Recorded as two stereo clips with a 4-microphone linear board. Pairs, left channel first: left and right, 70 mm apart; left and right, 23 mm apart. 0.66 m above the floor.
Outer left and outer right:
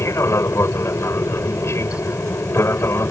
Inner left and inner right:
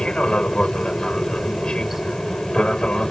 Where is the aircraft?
40° left (ahead or behind).